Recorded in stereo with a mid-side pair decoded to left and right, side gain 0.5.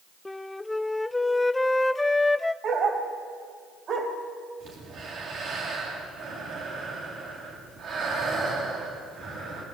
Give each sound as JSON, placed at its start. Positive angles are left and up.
{"t": 0.2, "sound": "a flute", "azimuth_deg": 15, "distance_m": 0.6}
{"t": 2.6, "sound": "a dog barking", "azimuth_deg": -50, "distance_m": 3.0}
{"t": 4.6, "sound": "breathing", "azimuth_deg": -60, "distance_m": 7.5}